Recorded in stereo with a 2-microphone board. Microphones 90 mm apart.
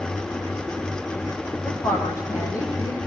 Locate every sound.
1.6 s a woman speaking: 30° left (ahead or behind), 8.5 m; by 3.0 s 35° left (ahead or behind), 9.5 m